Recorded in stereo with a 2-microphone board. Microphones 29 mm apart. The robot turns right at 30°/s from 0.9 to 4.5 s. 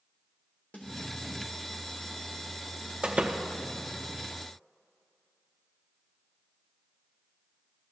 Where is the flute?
No flute in this recording.